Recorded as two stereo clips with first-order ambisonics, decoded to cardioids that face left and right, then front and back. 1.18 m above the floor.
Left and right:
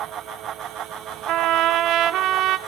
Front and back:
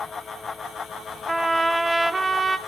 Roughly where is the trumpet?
Right.